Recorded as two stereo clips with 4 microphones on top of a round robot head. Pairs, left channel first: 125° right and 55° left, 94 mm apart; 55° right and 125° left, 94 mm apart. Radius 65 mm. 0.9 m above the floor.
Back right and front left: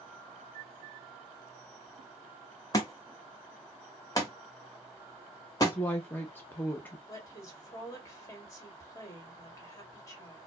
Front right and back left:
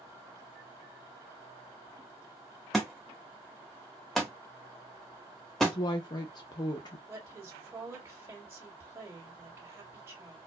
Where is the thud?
140° right, 0.6 m.